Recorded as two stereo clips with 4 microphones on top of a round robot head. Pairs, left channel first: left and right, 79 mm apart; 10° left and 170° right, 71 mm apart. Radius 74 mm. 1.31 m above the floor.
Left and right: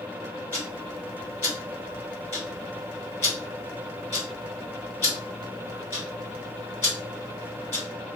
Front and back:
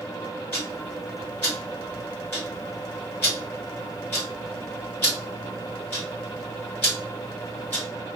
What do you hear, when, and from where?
0.5 s ticking: 55° left, 1.3 m